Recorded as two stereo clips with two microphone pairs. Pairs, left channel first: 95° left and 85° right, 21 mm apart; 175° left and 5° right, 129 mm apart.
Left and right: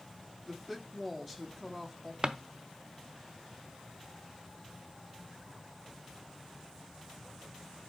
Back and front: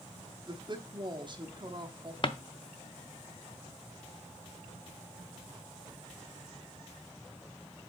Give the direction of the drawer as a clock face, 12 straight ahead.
5 o'clock.